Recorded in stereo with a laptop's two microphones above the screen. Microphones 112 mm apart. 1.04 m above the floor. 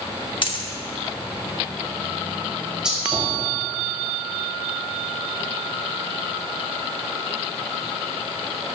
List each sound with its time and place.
0.4 s a dropped coin: 45° left (ahead or behind), 0.8 m
2.8 s a gunshot: 5° right (ahead or behind), 2.0 m